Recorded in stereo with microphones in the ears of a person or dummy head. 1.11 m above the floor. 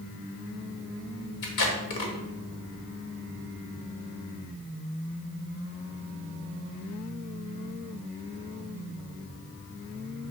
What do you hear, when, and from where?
1.4 s tape being pulled: 60° left (ahead or behind), 1.6 m